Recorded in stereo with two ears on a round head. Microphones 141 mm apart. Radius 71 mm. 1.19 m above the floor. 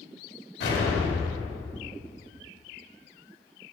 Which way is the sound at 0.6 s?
70° left (ahead or behind).